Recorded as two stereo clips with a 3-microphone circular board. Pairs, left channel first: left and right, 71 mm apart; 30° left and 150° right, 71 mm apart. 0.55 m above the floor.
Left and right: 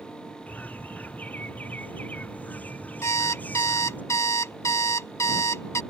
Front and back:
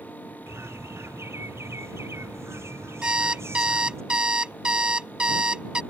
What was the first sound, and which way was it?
A bird, 160° left.